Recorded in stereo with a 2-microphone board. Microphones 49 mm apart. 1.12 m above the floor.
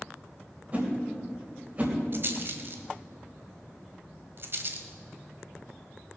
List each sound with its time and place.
0.7 s a whoosh: 35° right (ahead or behind), 3 m
2.1 s a rattle: 50° right (ahead or behind), 1.3 m